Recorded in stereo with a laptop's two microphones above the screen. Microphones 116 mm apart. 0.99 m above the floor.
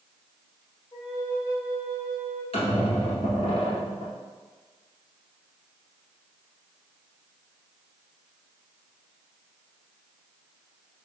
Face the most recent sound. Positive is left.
turn(degrees=55)  # may be behind; listen again after turning